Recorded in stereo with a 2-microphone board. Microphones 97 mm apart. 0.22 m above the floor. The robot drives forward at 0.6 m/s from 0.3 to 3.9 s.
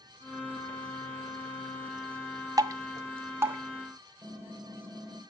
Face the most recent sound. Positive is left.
turn(degrees=-15)  # may be behind; listen again after turning